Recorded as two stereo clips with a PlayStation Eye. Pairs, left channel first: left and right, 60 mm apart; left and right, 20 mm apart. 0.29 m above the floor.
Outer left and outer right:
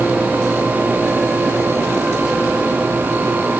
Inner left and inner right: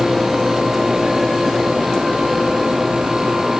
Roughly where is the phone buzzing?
No phone buzzing in this recording.